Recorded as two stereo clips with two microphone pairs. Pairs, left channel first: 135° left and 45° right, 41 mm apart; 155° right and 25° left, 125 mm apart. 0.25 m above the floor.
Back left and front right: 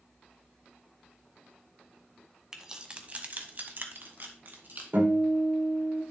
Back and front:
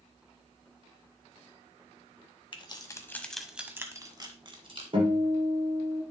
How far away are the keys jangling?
About 1.2 m.